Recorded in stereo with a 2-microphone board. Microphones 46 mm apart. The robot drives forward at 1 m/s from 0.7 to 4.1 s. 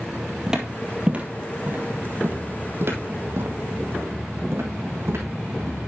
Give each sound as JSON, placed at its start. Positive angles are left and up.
{"t": 0.5, "sound": "footsteps", "side_deg": -10, "distance_m": 1.9}